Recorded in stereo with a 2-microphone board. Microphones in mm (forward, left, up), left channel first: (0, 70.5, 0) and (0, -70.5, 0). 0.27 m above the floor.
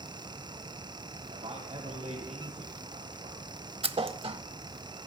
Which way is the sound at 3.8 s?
40° right (ahead or behind).